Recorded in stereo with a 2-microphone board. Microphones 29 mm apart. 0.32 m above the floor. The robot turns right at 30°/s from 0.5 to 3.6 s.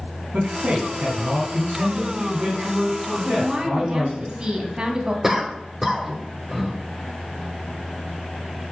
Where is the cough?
15° right (ahead or behind), 1.3 m.